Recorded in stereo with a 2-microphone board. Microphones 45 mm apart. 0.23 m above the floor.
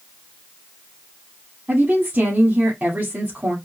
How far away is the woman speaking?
About 2 m.